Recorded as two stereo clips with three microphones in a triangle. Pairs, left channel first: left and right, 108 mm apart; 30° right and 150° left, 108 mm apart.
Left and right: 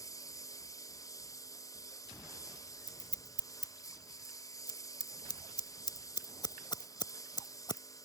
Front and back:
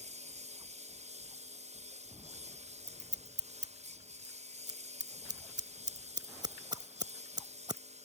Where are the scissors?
120° left.